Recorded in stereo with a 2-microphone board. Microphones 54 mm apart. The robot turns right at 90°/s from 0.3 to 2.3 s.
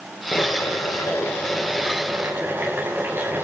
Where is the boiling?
40° left, 9.5 m; by 3.4 s 140° right, 9.5 m.